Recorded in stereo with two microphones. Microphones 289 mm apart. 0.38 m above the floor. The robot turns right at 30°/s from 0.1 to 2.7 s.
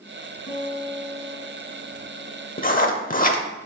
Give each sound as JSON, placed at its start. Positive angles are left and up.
{"t": 0.5, "sound": "a guitar", "azimuth_deg": 125, "distance_m": 3.0}
{"t": 2.6, "sound": "writing", "side_deg": 30, "distance_m": 0.7}